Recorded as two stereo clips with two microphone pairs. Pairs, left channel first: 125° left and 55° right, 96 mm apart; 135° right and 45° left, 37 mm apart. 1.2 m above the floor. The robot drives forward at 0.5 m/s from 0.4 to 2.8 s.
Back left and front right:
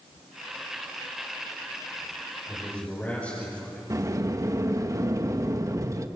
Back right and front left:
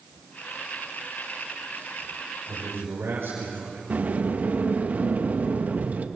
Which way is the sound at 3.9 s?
Straight ahead.